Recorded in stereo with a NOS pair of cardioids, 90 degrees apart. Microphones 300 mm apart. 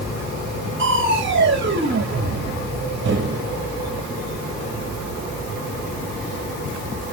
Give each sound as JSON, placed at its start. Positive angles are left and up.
{"t": 0.8, "sound": "crushing", "azimuth_deg": -40, "distance_m": 2.0}